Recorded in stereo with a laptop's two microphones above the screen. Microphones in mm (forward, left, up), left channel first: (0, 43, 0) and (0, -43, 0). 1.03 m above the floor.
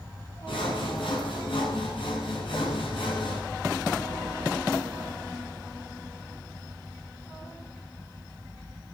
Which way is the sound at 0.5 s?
85° left.